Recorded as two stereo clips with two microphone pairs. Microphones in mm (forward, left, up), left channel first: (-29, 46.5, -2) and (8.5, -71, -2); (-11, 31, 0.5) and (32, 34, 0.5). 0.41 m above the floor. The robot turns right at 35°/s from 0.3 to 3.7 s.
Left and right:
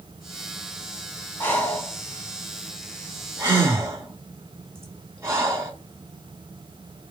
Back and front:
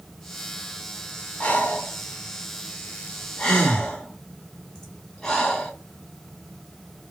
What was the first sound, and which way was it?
Breathing, 165° left.